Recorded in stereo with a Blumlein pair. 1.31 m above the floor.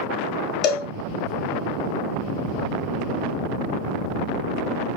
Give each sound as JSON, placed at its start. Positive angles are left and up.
{"t": 0.6, "sound": "a cowbell", "azimuth_deg": 30, "distance_m": 1.5}